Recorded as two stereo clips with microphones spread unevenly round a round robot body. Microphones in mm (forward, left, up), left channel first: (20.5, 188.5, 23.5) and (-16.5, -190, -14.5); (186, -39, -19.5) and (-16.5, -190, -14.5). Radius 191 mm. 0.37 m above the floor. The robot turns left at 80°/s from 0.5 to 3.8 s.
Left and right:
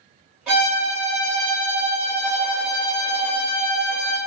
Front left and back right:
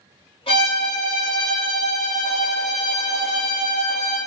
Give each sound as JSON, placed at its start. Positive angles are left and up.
{"t": 0.5, "sound": "a violin", "azimuth_deg": -15, "distance_m": 1.5}